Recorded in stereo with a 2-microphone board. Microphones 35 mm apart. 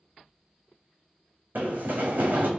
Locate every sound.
1.6 s running footsteps: 60° right (ahead or behind), 0.7 m